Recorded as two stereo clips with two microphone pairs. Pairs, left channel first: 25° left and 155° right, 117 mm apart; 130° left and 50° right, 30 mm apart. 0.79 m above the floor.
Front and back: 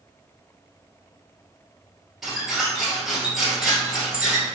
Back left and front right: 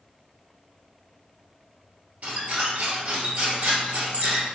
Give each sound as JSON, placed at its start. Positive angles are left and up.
{"t": 2.2, "sound": "a squeak", "azimuth_deg": -65, "distance_m": 1.2}